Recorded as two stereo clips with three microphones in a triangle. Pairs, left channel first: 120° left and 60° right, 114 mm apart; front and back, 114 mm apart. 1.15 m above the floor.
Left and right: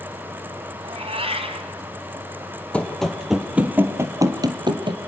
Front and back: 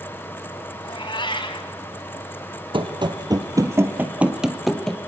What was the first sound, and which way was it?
A cat meowing, 40° right.